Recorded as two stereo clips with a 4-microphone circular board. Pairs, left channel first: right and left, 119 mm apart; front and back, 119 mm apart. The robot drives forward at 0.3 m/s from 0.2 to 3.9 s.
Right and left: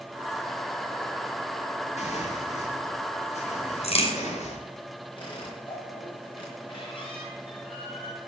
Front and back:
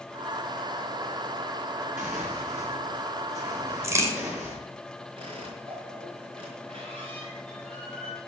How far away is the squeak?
About 5.5 m.